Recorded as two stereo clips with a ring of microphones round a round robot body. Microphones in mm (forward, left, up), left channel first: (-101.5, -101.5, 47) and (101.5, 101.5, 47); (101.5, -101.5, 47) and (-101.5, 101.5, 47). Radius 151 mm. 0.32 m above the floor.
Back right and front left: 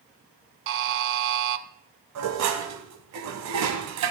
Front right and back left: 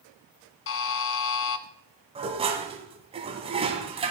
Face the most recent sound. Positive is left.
turn(degrees=65)